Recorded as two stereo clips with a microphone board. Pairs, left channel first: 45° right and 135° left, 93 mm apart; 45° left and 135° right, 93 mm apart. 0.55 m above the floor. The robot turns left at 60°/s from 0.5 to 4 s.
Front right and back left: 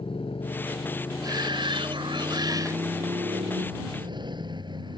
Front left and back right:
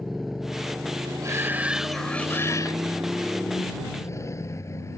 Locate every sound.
0.0 s a motorcycle: 50° right; by 5.0 s 100° left
1.2 s a shout: 175° left; by 2.8 s 85° left